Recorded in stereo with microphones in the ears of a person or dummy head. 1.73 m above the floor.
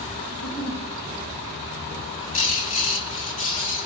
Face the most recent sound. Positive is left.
turn(degrees=40)  # may be behind; listen again after turning